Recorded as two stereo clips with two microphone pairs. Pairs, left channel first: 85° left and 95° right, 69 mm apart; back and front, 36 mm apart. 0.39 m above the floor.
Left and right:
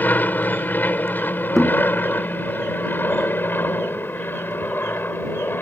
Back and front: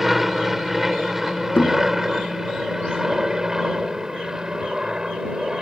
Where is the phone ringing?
No phone ringing in this recording.